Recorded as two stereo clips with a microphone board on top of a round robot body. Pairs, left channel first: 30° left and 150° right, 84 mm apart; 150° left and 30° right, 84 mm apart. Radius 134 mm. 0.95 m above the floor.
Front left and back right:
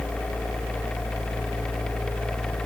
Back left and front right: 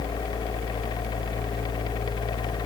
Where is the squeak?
I don't hear a squeak.